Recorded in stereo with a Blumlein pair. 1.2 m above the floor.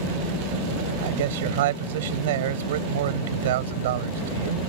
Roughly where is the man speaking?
Ahead right.